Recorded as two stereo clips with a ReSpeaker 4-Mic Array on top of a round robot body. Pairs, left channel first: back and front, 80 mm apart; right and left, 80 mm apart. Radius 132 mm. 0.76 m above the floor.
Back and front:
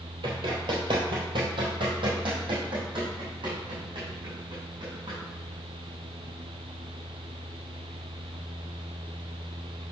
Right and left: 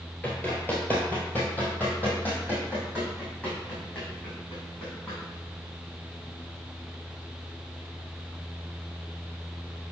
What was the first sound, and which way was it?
Running footsteps, 20° right.